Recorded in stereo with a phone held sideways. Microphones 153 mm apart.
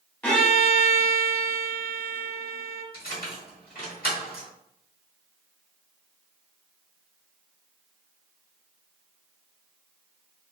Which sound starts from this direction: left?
Keys jangling, at 2.9 s.